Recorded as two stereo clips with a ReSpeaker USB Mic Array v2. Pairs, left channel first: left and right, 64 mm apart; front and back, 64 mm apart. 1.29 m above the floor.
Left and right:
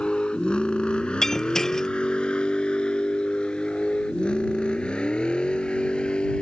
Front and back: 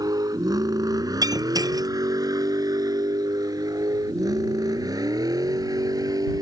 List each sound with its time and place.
0.0 s a vehicle: 165° left
1.2 s breaking glass: 175° left